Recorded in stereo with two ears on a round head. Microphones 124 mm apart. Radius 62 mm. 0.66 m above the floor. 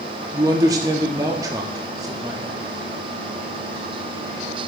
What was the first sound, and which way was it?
A man speaking, 25° right (ahead or behind).